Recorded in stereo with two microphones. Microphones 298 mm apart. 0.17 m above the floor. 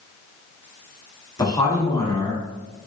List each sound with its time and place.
1.4 s a man speaking: 15° left (ahead or behind), 1.2 m